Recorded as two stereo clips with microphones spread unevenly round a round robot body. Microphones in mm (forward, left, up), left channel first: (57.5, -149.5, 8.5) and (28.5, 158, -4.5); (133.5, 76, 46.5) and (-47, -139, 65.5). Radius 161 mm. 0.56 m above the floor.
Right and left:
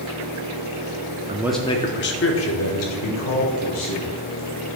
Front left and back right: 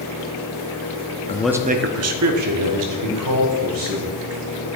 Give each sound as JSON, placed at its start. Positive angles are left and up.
{"t": 1.3, "sound": "a man speaking", "azimuth_deg": 65, "distance_m": 0.6}